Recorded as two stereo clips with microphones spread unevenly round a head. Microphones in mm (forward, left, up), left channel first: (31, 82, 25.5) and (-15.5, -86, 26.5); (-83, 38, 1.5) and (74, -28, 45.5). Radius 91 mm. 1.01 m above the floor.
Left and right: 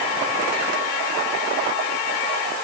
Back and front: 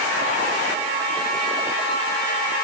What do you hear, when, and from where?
Only background noise.